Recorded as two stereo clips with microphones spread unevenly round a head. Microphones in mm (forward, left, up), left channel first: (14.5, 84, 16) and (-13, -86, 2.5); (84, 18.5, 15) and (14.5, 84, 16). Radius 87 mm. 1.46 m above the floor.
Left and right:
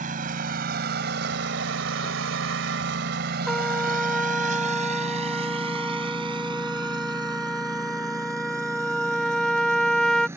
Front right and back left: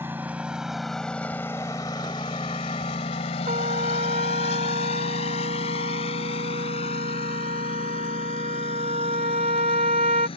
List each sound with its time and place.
0.0 s a lawn mower: 145° right; by 10.4 s 20° right
3.5 s a trumpet: 165° left